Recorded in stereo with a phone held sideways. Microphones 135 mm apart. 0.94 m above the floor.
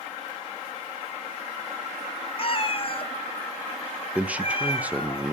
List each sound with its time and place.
2.4 s a cat meowing: 40° left (ahead or behind), 0.8 m
4.2 s a man speaking: 10° right (ahead or behind), 0.6 m